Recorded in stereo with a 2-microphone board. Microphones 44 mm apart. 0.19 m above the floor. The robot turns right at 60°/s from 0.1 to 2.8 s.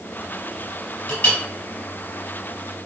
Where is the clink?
40° left (ahead or behind), 1.4 m; by 1.4 s 50° left (ahead or behind), 1.4 m.